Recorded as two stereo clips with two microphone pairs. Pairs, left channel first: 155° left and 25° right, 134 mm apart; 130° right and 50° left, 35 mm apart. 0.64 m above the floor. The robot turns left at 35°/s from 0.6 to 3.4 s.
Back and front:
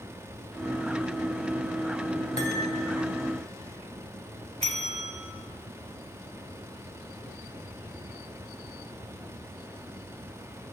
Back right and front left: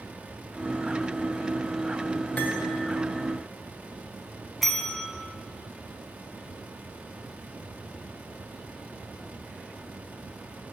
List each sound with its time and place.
2.4 s cutlery clinking: 170° right, 1.4 m; by 2.6 s straight behind, 1.4 m
4.6 s a bell: 40° right, 0.8 m